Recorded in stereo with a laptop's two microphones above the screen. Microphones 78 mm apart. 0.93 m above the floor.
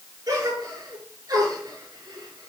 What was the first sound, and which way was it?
A gasp, 45° right (ahead or behind).